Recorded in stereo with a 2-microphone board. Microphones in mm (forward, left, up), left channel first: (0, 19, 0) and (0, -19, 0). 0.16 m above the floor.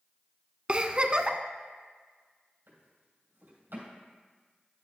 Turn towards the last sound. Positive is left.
turn(degrees=-80)